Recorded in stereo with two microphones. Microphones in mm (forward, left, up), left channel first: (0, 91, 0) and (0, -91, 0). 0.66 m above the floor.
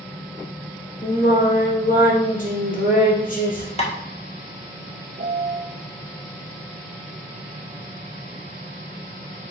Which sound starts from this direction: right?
A piano, at 5.2 s.